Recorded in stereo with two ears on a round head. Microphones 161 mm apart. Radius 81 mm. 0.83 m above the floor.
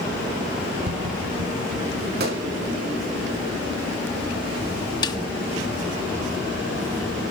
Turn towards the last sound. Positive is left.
turn(degrees=25)  # may be behind; listen again after turning